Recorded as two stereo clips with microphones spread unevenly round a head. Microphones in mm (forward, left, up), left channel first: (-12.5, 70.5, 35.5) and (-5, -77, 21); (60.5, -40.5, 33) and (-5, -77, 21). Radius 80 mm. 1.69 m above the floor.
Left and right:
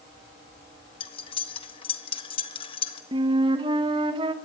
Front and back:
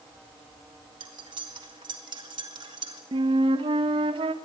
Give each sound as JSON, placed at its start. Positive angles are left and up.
{"t": 1.0, "sound": "cutlery clinking", "azimuth_deg": 145, "distance_m": 1.5}
{"t": 3.1, "sound": "a flute", "azimuth_deg": -150, "distance_m": 1.6}